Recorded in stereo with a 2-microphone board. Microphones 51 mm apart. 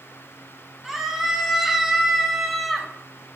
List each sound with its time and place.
0.8 s a scream: 5° right (ahead or behind), 4.5 m; by 2.9 s centre (ahead or behind), 3 m